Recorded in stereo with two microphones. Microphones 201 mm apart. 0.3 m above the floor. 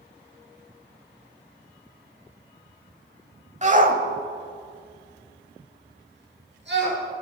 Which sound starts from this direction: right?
A shout, at 3.6 s.